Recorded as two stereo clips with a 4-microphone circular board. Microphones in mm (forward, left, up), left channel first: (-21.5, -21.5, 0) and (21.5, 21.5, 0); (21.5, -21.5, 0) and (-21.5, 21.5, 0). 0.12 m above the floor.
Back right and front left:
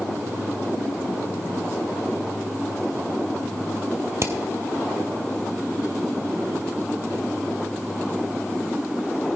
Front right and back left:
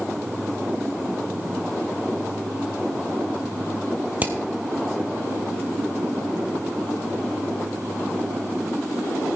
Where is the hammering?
75° left, 1.4 m.